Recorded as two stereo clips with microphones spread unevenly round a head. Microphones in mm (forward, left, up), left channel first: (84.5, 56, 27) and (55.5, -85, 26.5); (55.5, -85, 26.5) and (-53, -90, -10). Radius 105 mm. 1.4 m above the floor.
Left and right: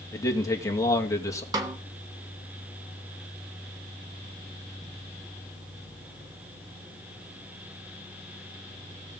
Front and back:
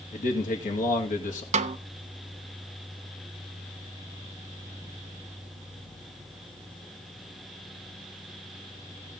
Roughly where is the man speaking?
Ahead.